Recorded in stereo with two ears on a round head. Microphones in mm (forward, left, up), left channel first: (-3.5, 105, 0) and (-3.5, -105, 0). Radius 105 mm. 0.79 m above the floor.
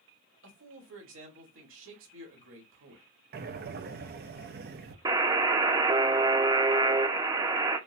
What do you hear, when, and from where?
0.4 s a man speaking: 60° right (ahead or behind), 1.8 m
3.3 s breathing: 40° right (ahead or behind), 0.5 m
5.0 s a buzzer: 20° right (ahead or behind), 0.6 m